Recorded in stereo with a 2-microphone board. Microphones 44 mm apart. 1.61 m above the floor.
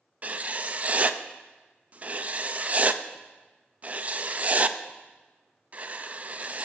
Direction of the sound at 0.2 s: 35° right (ahead or behind).